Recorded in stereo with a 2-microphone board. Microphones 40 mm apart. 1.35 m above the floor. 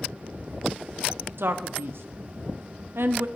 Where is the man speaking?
70° right (ahead or behind), 0.7 m.